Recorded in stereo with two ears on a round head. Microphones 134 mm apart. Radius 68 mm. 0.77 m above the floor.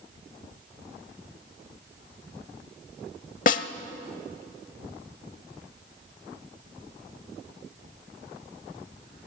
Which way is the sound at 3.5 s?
55° left (ahead or behind).